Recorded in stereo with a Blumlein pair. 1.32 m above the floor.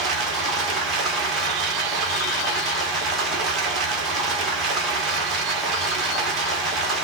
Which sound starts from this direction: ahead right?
Running water, at 0.0 s.